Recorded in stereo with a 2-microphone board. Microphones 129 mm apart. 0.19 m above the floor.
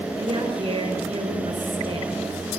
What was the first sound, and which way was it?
A woman speaking, 45° right (ahead or behind).